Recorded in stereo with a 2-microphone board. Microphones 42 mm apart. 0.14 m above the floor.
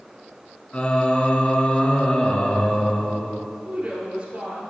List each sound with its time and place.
0.7 s singing: 30° left (ahead or behind), 0.9 m
3.6 s a woman speaking: 20° right (ahead or behind), 2 m